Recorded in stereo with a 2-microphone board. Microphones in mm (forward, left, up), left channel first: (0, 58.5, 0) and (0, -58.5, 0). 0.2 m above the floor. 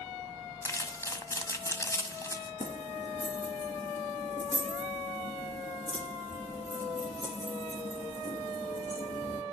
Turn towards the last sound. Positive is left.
turn(degrees=70)  # may be behind; listen again after turning